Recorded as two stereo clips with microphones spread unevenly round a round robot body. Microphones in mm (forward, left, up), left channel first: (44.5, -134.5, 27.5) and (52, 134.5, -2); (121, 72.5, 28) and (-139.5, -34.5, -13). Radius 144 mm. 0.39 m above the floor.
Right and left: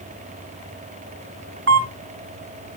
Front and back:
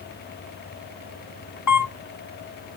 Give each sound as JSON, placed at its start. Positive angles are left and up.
{"t": 1.7, "sound": "a camera shutter", "azimuth_deg": 50, "distance_m": 1.6}